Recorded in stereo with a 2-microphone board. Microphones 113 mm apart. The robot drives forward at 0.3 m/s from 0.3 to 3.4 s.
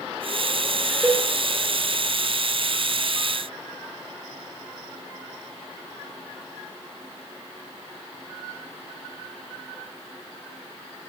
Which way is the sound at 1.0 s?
5° right (ahead or behind).